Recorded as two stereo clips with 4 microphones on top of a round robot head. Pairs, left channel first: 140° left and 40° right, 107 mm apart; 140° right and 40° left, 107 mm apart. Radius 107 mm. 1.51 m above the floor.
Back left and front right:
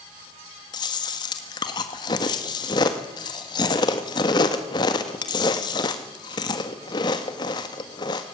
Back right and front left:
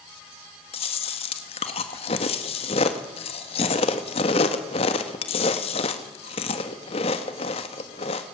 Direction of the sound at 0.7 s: 170° right.